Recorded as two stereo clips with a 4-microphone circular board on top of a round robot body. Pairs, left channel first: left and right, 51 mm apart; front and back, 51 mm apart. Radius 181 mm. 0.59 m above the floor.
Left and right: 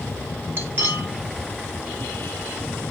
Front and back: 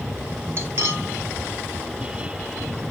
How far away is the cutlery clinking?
About 1.6 m.